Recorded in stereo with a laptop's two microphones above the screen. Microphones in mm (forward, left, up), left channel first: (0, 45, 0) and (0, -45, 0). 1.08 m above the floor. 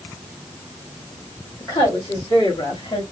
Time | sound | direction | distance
1.6 | a woman speaking | 35° left (ahead or behind) | 2.5 m